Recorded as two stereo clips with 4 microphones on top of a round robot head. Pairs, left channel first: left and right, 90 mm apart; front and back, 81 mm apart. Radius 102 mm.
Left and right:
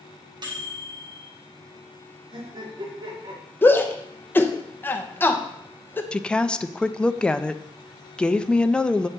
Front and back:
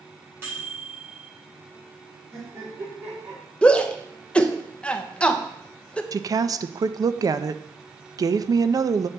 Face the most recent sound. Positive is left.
turn(degrees=165)